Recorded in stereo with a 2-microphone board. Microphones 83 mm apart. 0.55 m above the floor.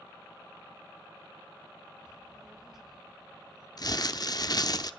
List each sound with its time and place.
2.0 s a child speaking: 10° right (ahead or behind), 1.2 m; by 3.7 s 5° right (ahead or behind), 3.5 m
3.8 s crumpling: 50° left (ahead or behind), 0.7 m